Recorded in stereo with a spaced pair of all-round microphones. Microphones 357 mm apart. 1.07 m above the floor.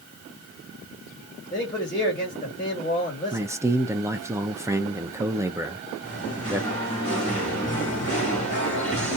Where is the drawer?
I don't hear a drawer.